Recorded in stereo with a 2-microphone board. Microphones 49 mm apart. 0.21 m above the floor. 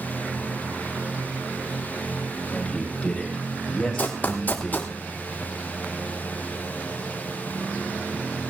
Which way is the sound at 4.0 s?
35° left (ahead or behind).